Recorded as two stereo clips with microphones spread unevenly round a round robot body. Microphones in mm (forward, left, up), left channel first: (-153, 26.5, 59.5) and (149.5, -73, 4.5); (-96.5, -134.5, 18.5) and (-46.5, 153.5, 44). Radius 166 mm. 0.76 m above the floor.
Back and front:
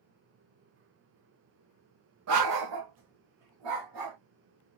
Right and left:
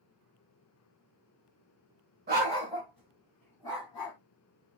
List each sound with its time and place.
2.3 s a dog barking: 25° left, 0.7 m; by 4.2 s 25° right, 1.3 m